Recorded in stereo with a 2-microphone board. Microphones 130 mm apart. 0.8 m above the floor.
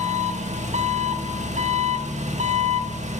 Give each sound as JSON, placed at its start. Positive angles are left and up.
{"t": 0.0, "sound": "an engine running", "side_deg": -65, "distance_m": 1.3}